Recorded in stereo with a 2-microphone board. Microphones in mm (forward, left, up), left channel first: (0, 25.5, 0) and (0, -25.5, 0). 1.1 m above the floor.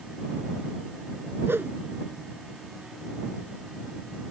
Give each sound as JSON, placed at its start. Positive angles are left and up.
{"t": 1.5, "sound": "a whoosh", "side_deg": -50}